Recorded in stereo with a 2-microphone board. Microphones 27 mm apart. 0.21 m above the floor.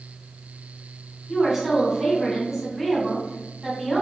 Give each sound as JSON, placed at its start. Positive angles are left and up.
{"t": 1.3, "sound": "a woman speaking", "side_deg": -10, "distance_m": 1.5}